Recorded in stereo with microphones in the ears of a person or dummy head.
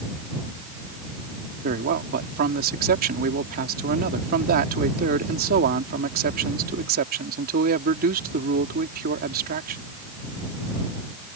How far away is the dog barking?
I don't hear a dog barking.